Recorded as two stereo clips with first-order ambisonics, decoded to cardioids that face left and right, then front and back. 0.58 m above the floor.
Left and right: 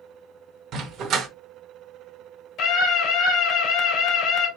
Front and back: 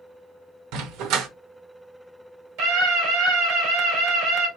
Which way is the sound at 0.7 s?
145° right.